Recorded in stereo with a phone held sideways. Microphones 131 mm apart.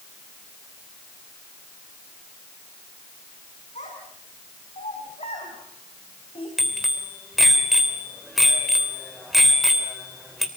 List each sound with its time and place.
3.8 s a child speaking: 65° left (ahead or behind), 6 m; by 6.5 s 45° left (ahead or behind), 4 m
6.6 s a bicycle bell: centre (ahead or behind), 3 m